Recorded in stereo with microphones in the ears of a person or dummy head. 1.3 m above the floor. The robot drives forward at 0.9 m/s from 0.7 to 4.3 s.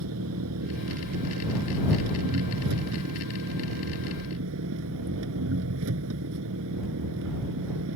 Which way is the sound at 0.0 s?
80° right.